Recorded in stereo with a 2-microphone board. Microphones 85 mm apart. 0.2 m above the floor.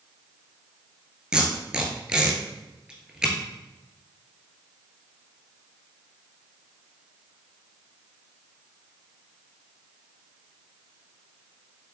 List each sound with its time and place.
1.3 s tape being pulled: 10° right (ahead or behind), 1.5 m